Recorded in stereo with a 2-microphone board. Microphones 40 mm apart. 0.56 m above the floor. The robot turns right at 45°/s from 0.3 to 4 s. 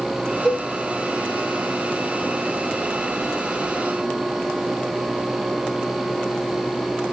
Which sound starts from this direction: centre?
A cowbell, at 0.5 s.